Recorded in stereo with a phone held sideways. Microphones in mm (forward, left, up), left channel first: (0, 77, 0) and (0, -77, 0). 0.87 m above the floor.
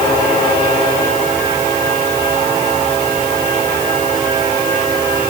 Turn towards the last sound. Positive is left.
No sound to turn to.